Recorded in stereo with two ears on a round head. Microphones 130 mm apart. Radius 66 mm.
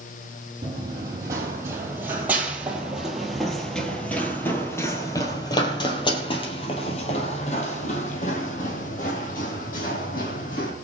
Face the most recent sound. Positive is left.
turn(degrees=65)  # may be behind; listen again after turning